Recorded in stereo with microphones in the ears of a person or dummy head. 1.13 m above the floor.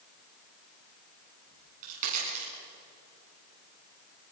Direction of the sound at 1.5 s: 45° right (ahead or behind).